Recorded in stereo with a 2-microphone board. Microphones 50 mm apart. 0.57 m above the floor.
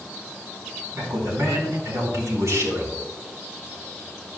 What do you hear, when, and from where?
0.9 s a man speaking: 80° right, 4 m